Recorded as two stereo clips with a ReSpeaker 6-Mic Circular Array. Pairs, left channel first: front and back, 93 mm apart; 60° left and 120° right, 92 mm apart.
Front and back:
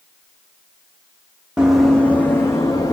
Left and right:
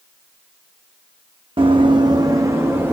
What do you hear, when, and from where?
1.6 s running footsteps: 100° right, 0.7 m; by 3.0 s 50° right, 1.1 m